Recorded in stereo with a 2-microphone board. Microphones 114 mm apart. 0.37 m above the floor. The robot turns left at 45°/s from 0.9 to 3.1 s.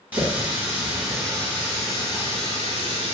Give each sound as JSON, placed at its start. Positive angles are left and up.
{"t": 0.1, "sound": "a running tap", "azimuth_deg": -165, "distance_m": 1.7}